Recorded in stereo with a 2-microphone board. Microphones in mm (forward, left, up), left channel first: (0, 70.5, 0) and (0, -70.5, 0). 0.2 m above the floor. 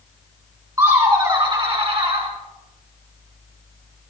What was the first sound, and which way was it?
Laughter, 25° right (ahead or behind).